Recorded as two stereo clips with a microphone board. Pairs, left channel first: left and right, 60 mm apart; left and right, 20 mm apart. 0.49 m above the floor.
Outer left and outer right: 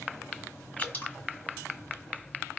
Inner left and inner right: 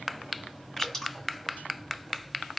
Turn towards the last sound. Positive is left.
turn(degrees=30)  # may be behind; listen again after turning